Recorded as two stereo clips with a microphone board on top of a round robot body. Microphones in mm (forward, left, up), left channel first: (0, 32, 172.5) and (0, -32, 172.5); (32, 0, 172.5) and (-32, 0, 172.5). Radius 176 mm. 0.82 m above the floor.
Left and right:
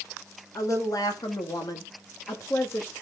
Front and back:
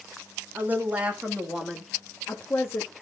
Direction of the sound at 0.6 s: 120° left.